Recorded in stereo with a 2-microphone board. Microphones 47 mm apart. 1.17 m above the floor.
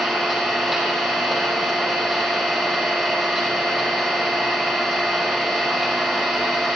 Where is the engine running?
5° right (ahead or behind), 4.5 m.